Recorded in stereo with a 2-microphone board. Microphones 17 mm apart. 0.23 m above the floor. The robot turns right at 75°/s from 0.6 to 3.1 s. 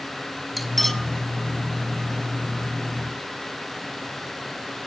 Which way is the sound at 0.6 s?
5° left (ahead or behind).